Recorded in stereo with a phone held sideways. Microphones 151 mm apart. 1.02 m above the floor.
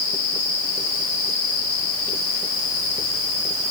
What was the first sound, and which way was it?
Only background noise.